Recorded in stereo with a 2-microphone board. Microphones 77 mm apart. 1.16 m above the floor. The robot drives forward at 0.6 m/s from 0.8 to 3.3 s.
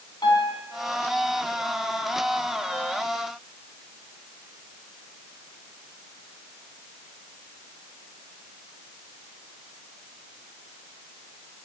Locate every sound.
0.2 s a piano: 75° left (ahead or behind), 3 m